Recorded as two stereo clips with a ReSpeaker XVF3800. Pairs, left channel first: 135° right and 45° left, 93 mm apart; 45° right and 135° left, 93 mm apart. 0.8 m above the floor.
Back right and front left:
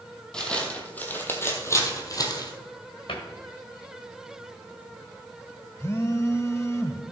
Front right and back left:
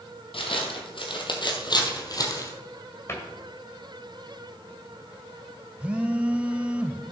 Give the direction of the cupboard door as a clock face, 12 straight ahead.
4 o'clock.